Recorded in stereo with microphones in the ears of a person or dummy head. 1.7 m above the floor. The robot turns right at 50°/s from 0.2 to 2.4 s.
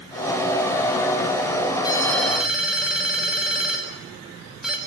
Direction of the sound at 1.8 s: 25° left (ahead or behind).